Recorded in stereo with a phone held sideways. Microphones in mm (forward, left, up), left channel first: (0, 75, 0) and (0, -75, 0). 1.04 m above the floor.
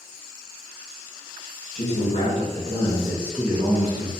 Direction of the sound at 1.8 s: 50° left (ahead or behind).